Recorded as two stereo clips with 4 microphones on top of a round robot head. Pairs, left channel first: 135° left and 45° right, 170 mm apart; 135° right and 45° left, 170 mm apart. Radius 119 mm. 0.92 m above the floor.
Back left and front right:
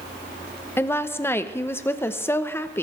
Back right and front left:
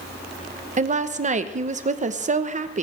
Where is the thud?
No thud in this recording.